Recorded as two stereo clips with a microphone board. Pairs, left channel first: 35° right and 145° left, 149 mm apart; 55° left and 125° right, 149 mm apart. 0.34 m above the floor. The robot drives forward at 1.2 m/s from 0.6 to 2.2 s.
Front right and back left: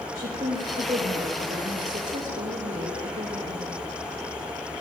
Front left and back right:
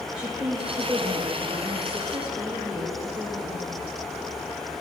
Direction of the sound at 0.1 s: 155° left.